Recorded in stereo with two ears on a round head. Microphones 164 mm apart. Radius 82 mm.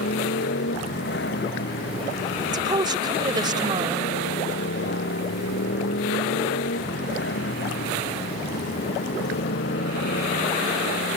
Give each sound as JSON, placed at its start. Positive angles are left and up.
{"t": 0.0, "sound": "a motorcycle", "side_deg": 65}
{"t": 2.5, "sound": "a woman speaking", "side_deg": -25}